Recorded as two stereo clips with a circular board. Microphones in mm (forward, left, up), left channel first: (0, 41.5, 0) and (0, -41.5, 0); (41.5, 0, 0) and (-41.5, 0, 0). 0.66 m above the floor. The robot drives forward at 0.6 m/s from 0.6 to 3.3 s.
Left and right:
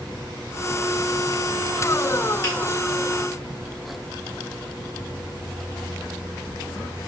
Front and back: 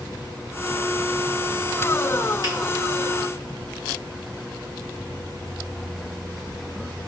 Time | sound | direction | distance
2.4 | a finger snap | 145° left | 1.9 m